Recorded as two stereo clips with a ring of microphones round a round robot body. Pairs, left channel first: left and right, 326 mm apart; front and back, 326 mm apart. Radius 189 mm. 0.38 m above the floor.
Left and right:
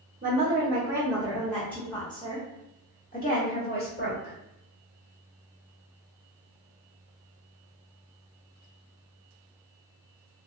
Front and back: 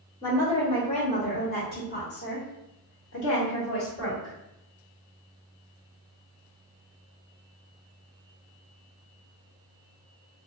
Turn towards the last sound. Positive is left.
turn(degrees=45)